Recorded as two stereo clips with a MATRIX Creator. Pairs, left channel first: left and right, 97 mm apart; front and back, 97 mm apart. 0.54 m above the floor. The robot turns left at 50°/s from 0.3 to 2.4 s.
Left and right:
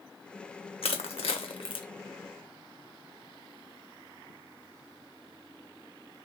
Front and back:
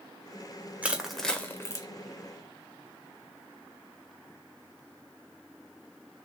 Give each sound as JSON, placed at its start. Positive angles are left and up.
{"t": 0.8, "sound": "crushing", "azimuth_deg": 105, "distance_m": 0.7}